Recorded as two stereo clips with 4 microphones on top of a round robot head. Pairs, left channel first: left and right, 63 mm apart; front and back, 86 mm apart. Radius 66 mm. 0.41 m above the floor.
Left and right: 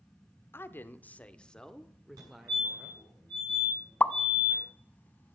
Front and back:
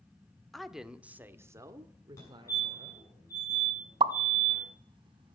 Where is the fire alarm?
60° right, 6.5 m.